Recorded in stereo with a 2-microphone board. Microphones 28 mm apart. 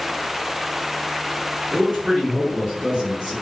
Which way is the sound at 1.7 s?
20° right (ahead or behind).